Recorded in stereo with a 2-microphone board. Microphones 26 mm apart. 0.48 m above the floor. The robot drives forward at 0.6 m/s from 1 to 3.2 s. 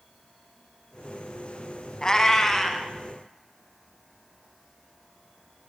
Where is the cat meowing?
30° left (ahead or behind), 0.5 m; by 2.9 s 15° left (ahead or behind), 1.0 m.